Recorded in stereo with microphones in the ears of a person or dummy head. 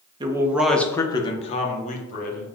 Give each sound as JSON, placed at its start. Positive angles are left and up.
{"t": 0.2, "sound": "a man speaking", "side_deg": -25, "distance_m": 0.6}